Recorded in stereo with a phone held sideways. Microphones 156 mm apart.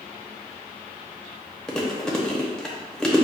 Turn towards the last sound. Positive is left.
turn(degrees=5)  # may be behind; listen again after turning